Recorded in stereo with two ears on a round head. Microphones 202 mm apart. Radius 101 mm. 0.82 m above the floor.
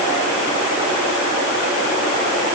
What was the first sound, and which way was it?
Only background noise.